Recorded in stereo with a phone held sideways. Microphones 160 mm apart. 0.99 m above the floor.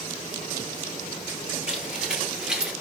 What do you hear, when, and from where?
1.7 s footsteps: 5° right (ahead or behind), 1.4 m